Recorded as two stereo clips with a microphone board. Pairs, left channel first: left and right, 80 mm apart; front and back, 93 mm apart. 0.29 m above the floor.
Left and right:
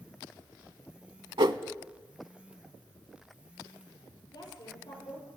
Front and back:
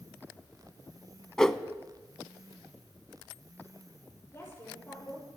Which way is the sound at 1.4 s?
85° right.